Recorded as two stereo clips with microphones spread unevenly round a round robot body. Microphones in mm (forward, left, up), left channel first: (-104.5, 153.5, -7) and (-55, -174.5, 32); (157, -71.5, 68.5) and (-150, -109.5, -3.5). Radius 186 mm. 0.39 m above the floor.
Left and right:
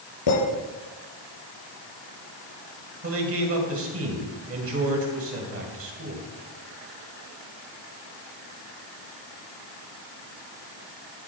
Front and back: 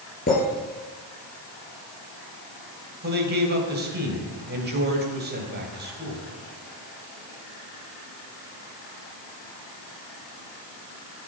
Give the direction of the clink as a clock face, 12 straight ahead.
10 o'clock.